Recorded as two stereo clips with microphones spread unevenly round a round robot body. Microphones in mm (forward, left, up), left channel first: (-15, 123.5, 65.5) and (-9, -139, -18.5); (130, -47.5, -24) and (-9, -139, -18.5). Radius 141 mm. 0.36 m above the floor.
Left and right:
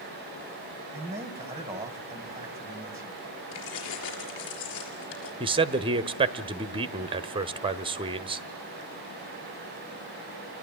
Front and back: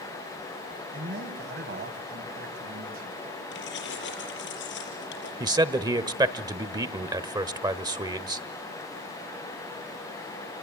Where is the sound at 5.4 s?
95° right, 1.1 m.